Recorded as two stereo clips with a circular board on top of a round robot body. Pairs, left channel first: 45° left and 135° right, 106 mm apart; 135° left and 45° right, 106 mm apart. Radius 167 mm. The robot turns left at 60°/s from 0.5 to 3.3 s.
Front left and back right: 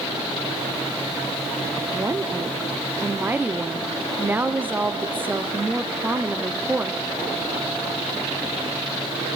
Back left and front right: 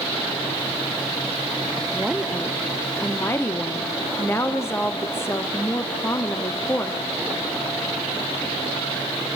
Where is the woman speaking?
105° right, 1.2 m; by 7.0 s 170° left, 1.2 m.